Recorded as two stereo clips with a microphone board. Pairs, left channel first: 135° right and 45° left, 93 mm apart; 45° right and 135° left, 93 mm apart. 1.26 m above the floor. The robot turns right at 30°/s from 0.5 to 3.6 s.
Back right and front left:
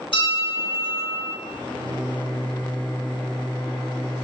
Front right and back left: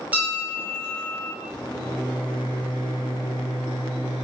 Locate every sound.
0.1 s a bell: 150° right, 1.0 m; by 1.3 s 125° right, 1.0 m
1.4 s a microwave: 115° right, 1.3 m; by 4.2 s 50° right, 1.3 m